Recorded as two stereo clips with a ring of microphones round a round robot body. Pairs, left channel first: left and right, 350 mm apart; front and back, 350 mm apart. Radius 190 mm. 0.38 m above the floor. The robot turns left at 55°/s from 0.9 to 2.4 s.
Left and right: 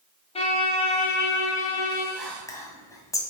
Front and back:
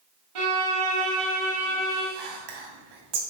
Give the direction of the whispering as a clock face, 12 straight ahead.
6 o'clock.